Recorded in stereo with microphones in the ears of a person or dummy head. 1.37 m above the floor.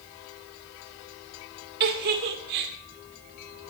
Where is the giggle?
55° right (ahead or behind), 2.0 m.